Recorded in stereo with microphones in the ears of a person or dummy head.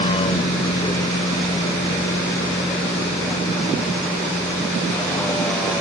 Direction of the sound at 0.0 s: 30° left (ahead or behind).